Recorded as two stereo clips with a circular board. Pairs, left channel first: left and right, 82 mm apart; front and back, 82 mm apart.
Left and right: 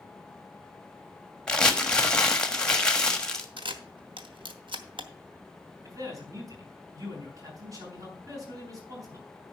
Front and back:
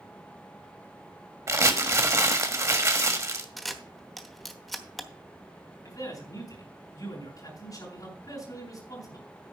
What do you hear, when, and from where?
1.5 s crumpling: 165° left, 1.3 m
3.6 s a camera shutter: 90° right, 1.1 m
5.8 s a man speaking: 45° right, 6 m